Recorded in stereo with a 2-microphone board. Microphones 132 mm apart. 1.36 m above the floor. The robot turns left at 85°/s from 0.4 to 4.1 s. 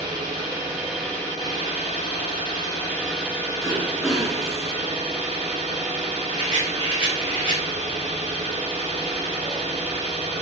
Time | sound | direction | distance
0.0 | an engine running | 130° right | 1.1 m
3.6 | throat clearing | 140° right | 0.7 m
6.3 | a rattle | 45° right (ahead or behind) | 0.9 m